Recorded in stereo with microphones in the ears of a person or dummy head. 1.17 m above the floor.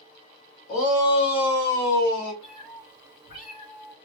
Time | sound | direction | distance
0.7 | a shout | 35° left (ahead or behind) | 1.2 m
2.4 | a cat meowing | 40° left (ahead or behind) | 1.6 m